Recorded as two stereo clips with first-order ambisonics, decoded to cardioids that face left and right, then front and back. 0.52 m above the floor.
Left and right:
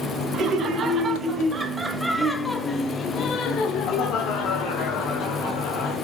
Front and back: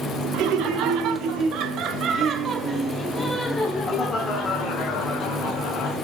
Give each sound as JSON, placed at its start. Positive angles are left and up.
{"t": 0.3, "sound": "laughter", "azimuth_deg": -145, "distance_m": 1.6}